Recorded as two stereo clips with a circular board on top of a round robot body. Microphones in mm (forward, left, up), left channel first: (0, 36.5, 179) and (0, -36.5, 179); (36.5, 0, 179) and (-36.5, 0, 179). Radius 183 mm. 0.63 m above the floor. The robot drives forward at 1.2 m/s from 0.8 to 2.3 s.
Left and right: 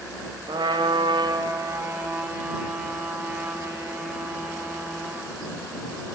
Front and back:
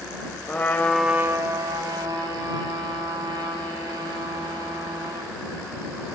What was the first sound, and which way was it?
A trumpet, 65° right.